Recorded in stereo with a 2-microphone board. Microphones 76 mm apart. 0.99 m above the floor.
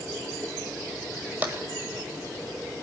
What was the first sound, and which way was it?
Tapping, 25° right (ahead or behind).